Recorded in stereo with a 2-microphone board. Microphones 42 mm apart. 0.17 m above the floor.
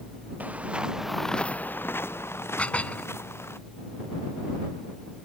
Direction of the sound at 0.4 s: 40° right (ahead or behind).